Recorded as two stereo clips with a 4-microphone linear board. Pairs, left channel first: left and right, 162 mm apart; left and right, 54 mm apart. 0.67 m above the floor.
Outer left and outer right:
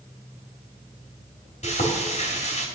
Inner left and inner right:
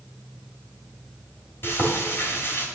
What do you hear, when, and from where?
1.6 s frying: 45° left (ahead or behind), 3 m